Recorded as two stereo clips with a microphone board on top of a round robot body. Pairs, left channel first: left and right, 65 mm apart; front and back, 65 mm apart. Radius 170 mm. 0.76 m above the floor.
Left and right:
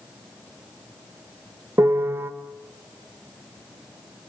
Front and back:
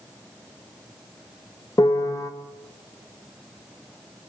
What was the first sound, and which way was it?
A piano, 35° right.